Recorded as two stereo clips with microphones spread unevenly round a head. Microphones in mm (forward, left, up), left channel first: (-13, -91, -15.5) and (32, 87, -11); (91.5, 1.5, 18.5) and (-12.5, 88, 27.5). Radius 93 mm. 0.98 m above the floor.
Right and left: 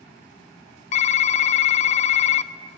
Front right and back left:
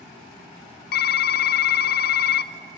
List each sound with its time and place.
0.9 s typing on a keyboard: 50° right, 0.5 m